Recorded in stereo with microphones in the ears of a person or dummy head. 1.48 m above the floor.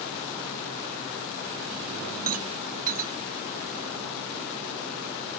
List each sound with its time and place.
2.3 s a rattle: 40° right (ahead or behind)